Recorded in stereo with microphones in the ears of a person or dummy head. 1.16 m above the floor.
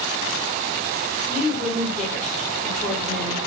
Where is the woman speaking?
5° left (ahead or behind), 2.5 m.